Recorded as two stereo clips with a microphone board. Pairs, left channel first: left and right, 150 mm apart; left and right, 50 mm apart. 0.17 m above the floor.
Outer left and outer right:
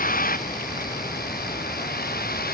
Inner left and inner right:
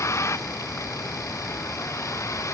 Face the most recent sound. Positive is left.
turn(degrees=80)